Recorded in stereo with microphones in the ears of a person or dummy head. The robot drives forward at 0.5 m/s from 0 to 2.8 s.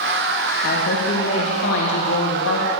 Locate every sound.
0.6 s a woman speaking: 55° left (ahead or behind), 1.9 m; by 2.7 s 80° left, 1.6 m